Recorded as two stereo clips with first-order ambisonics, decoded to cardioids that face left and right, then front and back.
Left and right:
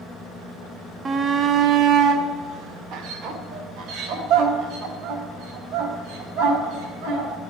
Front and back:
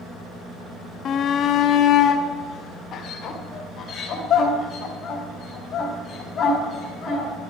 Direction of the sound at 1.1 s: 30° right.